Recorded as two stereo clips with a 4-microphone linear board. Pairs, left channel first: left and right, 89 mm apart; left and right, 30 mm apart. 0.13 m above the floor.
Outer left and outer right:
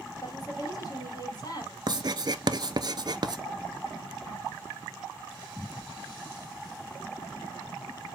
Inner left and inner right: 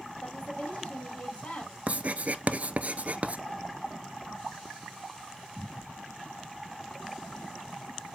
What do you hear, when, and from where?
0.2 s a woman speaking: 45° left (ahead or behind), 3 m
1.9 s writing: 50° right (ahead or behind), 0.5 m